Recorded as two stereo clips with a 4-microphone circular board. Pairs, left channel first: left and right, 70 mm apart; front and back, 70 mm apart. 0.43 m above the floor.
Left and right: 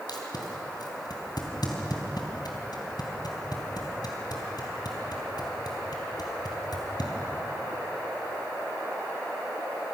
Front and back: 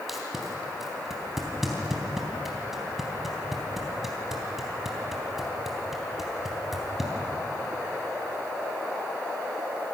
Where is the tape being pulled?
95° left, 3.5 m.